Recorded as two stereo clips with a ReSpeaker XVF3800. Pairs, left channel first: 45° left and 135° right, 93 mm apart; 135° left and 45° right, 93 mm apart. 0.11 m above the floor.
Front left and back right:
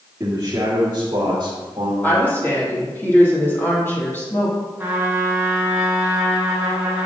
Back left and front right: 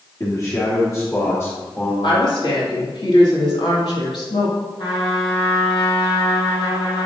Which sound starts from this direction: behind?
A man speaking, at 0.2 s.